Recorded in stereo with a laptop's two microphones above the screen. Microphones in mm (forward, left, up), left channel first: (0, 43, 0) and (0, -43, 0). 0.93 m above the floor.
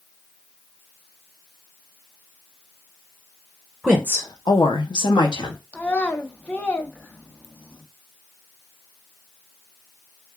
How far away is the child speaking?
About 0.8 m.